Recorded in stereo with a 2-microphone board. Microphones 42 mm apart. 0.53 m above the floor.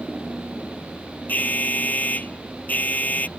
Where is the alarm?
40° left (ahead or behind).